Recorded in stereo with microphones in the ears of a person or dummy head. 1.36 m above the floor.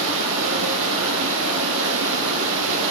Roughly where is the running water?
Right.